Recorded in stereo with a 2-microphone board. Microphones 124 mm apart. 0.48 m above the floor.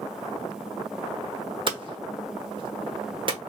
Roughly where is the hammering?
Right.